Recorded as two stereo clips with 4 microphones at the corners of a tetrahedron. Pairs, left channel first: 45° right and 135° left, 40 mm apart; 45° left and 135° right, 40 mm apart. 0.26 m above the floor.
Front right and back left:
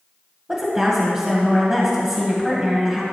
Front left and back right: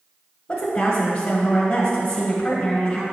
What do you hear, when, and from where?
0.5 s a woman speaking: 85° left, 1.7 m